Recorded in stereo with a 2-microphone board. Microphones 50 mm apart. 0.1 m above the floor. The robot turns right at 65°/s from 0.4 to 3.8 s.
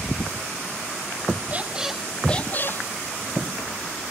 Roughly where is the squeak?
Ahead right.